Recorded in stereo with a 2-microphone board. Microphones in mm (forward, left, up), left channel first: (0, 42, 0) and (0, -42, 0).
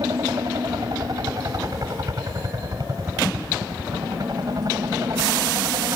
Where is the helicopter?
50° right (ahead or behind).